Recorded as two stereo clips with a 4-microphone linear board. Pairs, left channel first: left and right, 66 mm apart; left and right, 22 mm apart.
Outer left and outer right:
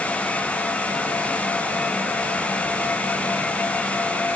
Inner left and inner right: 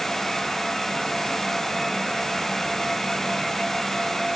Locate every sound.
Only background noise.